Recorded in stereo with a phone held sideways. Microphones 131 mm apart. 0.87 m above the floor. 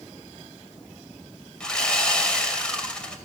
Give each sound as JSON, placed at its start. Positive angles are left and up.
{"t": 1.6, "sound": "sawing", "side_deg": 5, "distance_m": 2.5}